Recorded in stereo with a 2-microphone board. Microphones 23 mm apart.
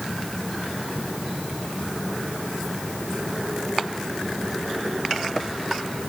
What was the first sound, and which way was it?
Only background noise.